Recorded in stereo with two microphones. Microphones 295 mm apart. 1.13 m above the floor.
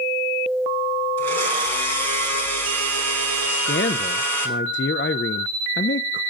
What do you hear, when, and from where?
1.2 s a blender: 65° right (ahead or behind), 4.5 m
3.5 s a man speaking: 40° left (ahead or behind), 0.6 m